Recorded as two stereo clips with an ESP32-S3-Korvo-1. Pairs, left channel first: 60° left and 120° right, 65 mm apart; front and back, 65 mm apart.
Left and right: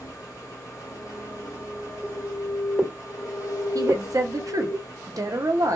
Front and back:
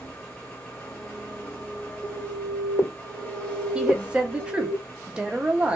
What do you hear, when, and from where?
0.0 s an engine running: 65° left, 1.0 m
2.0 s an alarm: 15° right, 1.7 m
3.8 s a woman speaking: 110° right, 0.6 m